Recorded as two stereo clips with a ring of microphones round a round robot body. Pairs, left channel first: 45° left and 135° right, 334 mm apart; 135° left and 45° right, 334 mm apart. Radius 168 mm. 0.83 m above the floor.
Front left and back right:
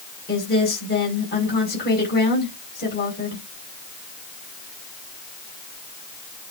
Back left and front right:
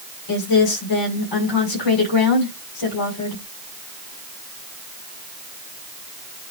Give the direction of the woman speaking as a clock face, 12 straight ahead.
8 o'clock.